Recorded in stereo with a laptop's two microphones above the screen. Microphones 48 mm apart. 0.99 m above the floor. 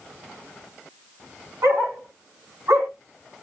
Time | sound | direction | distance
1.6 | a dog barking | 80° right | 3.5 m